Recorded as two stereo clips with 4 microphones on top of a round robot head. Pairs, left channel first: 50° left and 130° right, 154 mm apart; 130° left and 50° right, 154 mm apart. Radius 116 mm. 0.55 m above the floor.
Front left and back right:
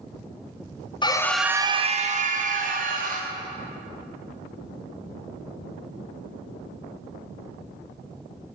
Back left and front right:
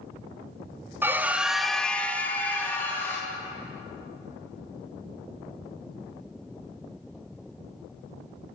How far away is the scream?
About 0.8 m.